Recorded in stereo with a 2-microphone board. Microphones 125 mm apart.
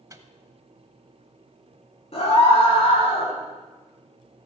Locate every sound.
0.1 s a microwave: 25° right (ahead or behind), 0.9 m
2.1 s a scream: 50° left (ahead or behind), 5 m